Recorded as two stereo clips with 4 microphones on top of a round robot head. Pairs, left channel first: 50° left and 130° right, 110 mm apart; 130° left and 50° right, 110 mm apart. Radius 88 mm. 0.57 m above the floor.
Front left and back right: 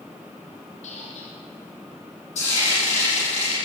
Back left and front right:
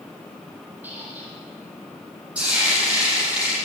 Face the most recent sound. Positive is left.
turn(degrees=30)